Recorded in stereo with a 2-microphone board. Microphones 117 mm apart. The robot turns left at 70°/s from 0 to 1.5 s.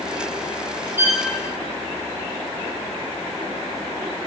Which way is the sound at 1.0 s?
20° right (ahead or behind).